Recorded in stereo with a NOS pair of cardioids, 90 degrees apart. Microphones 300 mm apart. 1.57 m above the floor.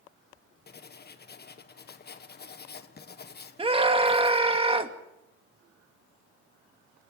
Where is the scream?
20° right, 2.5 m.